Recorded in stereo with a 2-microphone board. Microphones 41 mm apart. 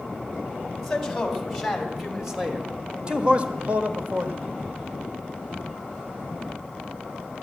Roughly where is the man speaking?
Centre.